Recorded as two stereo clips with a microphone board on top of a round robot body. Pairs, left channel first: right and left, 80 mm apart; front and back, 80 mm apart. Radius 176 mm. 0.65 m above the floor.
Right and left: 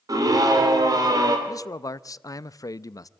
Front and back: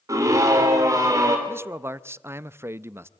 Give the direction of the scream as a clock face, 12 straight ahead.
8 o'clock.